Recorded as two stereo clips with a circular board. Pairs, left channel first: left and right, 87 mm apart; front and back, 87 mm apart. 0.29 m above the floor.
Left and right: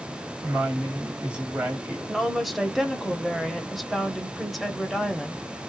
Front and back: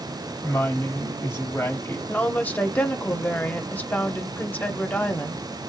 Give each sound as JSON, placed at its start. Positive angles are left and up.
{"t": 0.4, "sound": "a woman speaking", "azimuth_deg": -25, "distance_m": 1.8}
{"t": 2.1, "sound": "a woman speaking", "azimuth_deg": 0, "distance_m": 0.9}